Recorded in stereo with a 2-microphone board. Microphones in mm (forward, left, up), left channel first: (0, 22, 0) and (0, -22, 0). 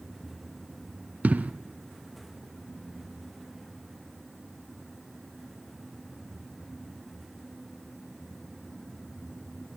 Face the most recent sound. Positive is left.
turn(degrees=-35)  # may be behind; listen again after turning